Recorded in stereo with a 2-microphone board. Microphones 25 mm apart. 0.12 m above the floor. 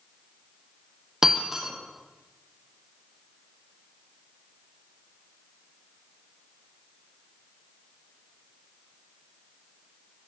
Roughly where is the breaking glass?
Right.